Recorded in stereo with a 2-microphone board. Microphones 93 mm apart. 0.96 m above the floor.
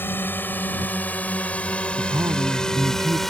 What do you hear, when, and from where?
0.0 s a drone: 20° left (ahead or behind); by 3.3 s centre (ahead or behind)
2.0 s a man speaking: 40° right (ahead or behind)